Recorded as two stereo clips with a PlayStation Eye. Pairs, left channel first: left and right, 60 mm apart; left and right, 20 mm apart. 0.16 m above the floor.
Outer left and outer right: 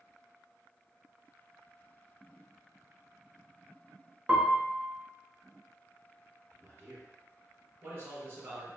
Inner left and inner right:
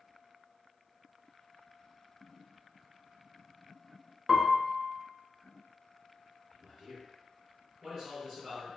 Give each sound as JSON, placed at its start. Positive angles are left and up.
{"t": 4.3, "sound": "a piano", "side_deg": -25, "distance_m": 0.6}
{"t": 6.5, "sound": "a man speaking", "side_deg": -40, "distance_m": 2.0}